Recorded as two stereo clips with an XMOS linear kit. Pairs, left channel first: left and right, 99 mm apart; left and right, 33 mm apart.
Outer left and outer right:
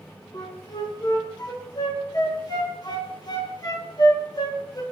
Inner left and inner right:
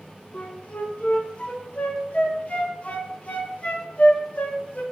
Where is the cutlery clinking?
I don't hear cutlery clinking.